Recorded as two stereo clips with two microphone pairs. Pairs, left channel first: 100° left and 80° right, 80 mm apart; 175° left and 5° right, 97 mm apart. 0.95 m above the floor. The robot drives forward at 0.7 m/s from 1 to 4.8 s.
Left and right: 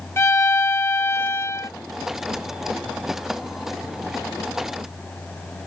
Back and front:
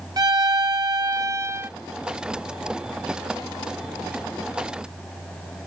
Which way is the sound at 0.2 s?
45° left.